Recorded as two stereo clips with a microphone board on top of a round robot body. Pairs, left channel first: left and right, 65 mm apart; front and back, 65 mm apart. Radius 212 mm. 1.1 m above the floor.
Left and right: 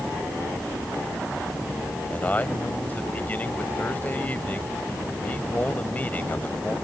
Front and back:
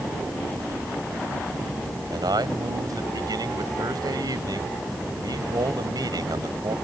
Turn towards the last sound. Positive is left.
turn(degrees=155)